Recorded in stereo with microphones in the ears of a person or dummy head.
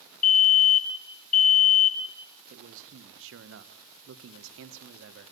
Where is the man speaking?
55° right (ahead or behind), 1.2 m.